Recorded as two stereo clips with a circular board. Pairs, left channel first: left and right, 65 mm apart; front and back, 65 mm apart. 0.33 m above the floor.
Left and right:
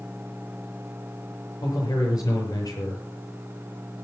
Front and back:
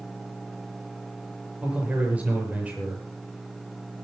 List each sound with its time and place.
1.6 s a man speaking: 110° left, 7.5 m